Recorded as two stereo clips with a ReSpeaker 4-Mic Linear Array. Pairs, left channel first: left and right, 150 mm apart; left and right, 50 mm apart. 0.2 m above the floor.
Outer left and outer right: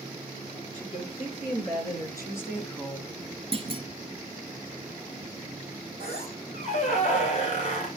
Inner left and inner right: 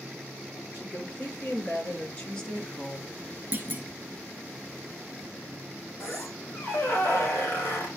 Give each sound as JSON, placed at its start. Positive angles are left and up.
{"t": 0.7, "sound": "a woman speaking", "side_deg": 40, "distance_m": 5.0}
{"t": 3.5, "sound": "a clunk", "side_deg": -40, "distance_m": 1.6}
{"t": 6.0, "sound": "a squeak", "side_deg": 45, "distance_m": 3.5}